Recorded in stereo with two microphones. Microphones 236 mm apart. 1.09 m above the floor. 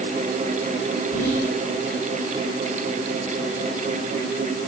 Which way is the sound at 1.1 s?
80° left.